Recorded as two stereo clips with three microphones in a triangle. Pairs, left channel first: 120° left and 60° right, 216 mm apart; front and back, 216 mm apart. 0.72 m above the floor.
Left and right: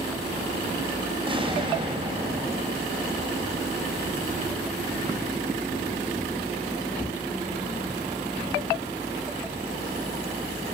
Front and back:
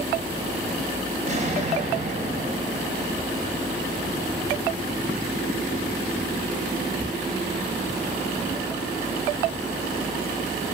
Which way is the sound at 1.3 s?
125° right.